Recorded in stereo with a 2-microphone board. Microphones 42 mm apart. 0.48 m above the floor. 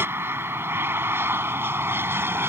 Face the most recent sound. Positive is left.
turn(degrees=-65)  # may be behind; listen again after turning